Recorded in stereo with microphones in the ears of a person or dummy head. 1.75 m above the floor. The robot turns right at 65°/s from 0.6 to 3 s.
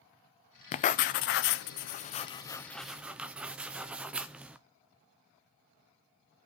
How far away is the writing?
About 0.6 m.